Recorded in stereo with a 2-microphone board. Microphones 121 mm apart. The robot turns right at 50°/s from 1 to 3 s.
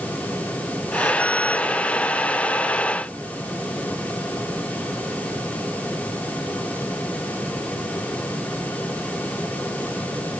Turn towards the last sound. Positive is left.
No sound to turn to.